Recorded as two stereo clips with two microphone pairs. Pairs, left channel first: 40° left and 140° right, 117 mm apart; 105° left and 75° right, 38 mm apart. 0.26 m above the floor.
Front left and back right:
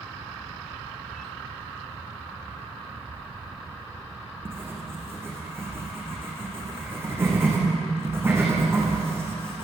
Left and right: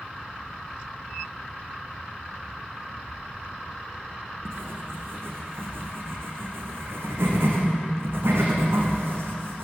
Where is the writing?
70° right, 7 m.